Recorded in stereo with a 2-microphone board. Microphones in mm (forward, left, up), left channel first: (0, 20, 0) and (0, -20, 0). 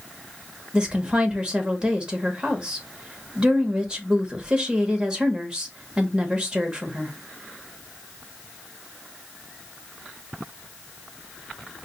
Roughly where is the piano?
I don't hear a piano.